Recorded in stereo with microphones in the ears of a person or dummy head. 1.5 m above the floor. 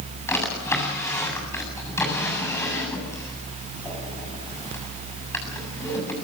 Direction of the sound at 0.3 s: 10° left (ahead or behind).